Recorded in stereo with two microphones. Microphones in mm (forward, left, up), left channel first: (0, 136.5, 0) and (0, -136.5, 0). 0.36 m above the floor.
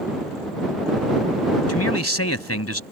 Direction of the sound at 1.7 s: 60° left (ahead or behind).